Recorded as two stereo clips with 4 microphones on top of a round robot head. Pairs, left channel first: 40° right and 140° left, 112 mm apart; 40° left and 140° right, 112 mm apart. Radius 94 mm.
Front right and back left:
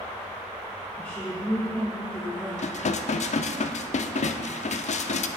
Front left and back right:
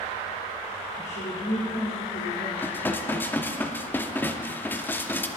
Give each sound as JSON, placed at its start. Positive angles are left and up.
{"t": 1.0, "sound": "a woman speaking", "azimuth_deg": 35, "distance_m": 2.5}
{"t": 2.6, "sound": "dishes clattering", "azimuth_deg": -35, "distance_m": 0.8}